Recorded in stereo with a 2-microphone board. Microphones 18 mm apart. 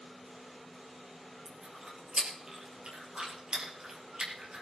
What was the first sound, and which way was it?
Chewing, 45° right (ahead or behind).